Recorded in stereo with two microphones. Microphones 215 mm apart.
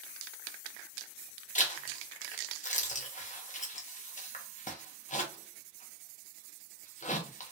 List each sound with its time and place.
1.6 s a zipper: 35° left (ahead or behind), 0.9 m